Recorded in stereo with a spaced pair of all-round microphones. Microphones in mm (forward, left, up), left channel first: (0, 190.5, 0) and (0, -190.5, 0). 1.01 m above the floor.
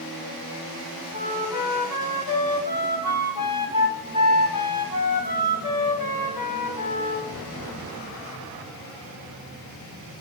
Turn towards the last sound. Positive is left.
turn(degrees=60)  # may be behind; listen again after turning